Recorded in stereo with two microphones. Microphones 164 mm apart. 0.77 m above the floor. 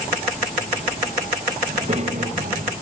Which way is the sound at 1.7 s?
40° right (ahead or behind).